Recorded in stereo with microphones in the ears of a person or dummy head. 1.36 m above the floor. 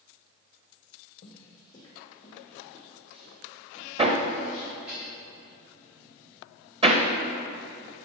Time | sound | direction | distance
1.2 | footsteps | 30° left (ahead or behind) | 2.5 m
4.0 | hammering | 30° right (ahead or behind) | 1.0 m